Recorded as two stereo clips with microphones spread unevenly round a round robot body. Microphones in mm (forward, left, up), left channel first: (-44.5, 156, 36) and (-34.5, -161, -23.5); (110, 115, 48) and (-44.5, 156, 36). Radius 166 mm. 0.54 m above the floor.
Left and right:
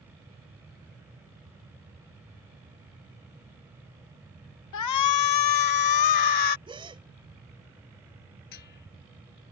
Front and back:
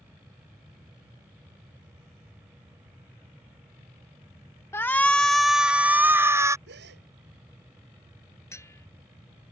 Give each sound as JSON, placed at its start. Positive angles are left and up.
{"t": 4.7, "sound": "a shout", "azimuth_deg": 60}
{"t": 6.7, "sound": "a gasp", "azimuth_deg": -165}
{"t": 8.5, "sound": "a bell", "azimuth_deg": 60}